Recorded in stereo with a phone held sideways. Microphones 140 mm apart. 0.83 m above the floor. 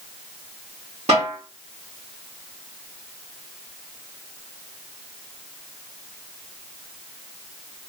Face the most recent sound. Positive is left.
turn(degrees=-55)  # may be behind; listen again after turning